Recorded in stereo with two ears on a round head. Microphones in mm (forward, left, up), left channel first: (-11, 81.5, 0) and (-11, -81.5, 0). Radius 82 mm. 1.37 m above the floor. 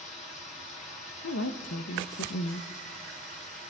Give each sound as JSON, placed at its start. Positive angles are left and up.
{"t": 0.0, "sound": "running water", "side_deg": 40, "distance_m": 3.5}
{"t": 1.2, "sound": "a woman speaking", "side_deg": 75, "distance_m": 1.0}